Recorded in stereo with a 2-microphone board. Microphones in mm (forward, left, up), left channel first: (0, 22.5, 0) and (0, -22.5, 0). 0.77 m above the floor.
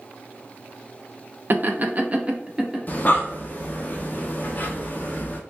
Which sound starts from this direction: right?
Laughter, at 1.5 s.